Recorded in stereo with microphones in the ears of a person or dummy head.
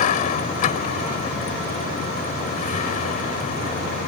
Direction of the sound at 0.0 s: 40° left (ahead or behind).